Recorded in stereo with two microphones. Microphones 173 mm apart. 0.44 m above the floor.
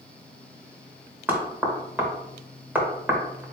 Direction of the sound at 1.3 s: 10° right (ahead or behind).